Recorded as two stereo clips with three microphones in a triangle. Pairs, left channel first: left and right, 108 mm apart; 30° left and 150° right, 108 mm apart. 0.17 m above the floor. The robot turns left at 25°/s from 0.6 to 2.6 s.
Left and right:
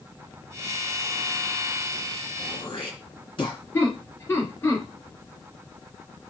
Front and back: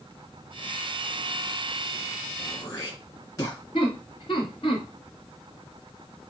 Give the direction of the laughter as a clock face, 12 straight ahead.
11 o'clock.